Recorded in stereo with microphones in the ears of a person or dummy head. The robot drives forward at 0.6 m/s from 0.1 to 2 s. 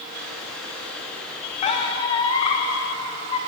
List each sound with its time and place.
1.6 s a squeak: 40° left (ahead or behind), 1.4 m; by 3.4 s 35° left (ahead or behind), 1.5 m